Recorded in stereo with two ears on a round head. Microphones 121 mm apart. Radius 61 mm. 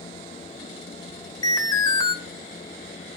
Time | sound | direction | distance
1.4 | an alarm | 30° left (ahead or behind) | 1.1 m